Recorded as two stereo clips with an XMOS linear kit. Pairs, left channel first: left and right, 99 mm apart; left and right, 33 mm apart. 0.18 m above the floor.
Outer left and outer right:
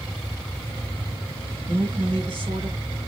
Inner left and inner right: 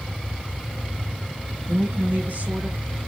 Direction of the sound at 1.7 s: 70° right (ahead or behind).